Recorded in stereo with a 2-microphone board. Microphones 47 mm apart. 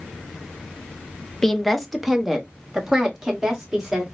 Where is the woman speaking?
10° left (ahead or behind), 0.6 m; by 4.0 s 15° right (ahead or behind), 1.8 m.